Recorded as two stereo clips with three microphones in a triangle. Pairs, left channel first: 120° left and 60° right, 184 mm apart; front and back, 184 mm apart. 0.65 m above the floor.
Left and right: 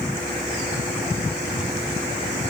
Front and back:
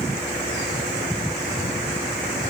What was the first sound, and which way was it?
Only background noise.